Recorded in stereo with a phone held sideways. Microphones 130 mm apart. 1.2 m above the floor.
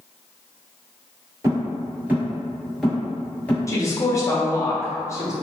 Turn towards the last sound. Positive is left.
turn(degrees=25)  # may be behind; listen again after turning